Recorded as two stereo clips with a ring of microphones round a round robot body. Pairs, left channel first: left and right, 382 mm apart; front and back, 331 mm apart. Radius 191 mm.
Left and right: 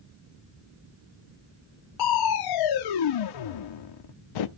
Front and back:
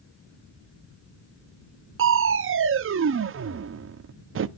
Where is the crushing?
125° left, 0.6 m.